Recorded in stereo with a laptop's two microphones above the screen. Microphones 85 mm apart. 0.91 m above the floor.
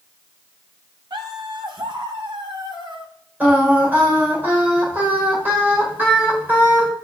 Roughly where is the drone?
No drone in this recording.